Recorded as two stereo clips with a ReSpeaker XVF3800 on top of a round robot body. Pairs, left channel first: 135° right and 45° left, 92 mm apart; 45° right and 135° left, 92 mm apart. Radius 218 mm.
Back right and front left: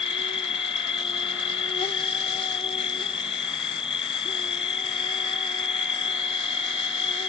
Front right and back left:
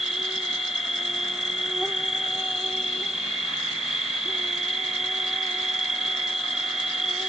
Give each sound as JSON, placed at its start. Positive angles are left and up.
{"t": 0.0, "sound": "an insect", "azimuth_deg": -140}